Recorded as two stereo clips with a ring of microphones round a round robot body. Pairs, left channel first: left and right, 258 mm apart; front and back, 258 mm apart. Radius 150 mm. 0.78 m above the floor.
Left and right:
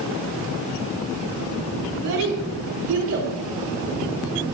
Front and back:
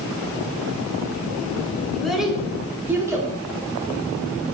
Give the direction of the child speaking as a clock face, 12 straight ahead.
3 o'clock.